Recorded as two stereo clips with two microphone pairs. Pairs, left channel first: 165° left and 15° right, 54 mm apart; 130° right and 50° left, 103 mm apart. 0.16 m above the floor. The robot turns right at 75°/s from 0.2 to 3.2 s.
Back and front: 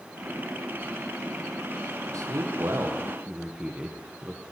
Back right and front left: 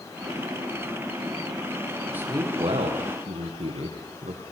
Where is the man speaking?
20° right, 5.5 m; by 4.4 s 60° left, 5.5 m.